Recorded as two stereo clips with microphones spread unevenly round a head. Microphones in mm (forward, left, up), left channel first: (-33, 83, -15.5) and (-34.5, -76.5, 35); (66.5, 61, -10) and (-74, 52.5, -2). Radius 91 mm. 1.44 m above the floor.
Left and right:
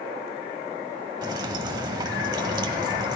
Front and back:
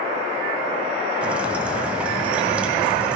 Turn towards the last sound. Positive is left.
turn(degrees=-105)